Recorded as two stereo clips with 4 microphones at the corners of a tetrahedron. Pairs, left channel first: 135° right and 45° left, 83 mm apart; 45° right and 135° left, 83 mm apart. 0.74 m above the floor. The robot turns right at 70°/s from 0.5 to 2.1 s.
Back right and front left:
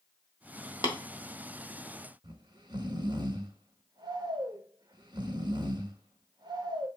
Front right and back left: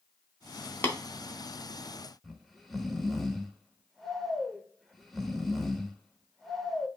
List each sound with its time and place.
0.8 s tapping: 110° right, 0.9 m; by 0.9 s 100° right, 0.9 m
2.2 s snoring: 45° left, 0.6 m